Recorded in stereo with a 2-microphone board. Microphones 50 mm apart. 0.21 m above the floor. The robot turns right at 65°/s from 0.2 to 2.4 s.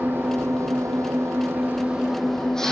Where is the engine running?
130° right, 3.5 m; by 2.7 s 10° left, 3.5 m.